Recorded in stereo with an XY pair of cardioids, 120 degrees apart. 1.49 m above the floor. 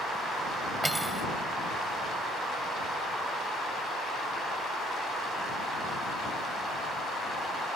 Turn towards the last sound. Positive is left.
turn(degrees=-10)